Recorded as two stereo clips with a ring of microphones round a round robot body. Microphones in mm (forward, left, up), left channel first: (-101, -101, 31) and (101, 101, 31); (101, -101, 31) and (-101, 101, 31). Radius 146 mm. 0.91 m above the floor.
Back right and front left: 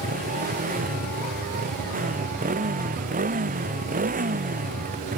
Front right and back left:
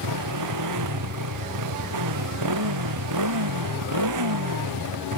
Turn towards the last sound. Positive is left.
turn(degrees=110)